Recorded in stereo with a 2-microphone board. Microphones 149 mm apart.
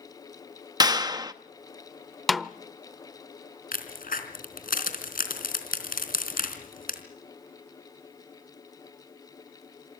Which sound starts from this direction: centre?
A snare drum, at 2.3 s.